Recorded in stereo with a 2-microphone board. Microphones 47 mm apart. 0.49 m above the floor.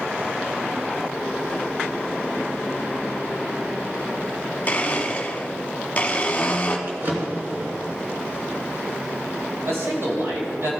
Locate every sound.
4.7 s a blender: 30° left (ahead or behind), 1.2 m
6.9 s a drawer: 40° right (ahead or behind), 3 m
9.7 s a man speaking: 60° right (ahead or behind), 2.5 m